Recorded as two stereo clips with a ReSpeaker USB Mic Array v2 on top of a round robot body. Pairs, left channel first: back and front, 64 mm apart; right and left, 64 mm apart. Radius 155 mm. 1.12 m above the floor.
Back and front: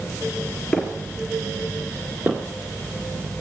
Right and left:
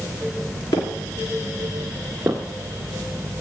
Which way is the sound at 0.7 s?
105° right.